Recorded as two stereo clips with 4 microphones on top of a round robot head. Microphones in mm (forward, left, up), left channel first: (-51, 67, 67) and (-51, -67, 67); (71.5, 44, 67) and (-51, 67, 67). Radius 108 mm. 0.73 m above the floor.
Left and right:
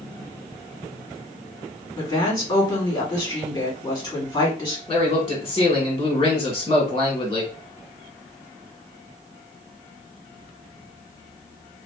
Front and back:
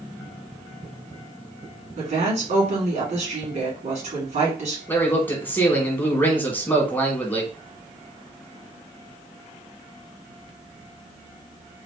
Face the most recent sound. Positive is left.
turn(degrees=55)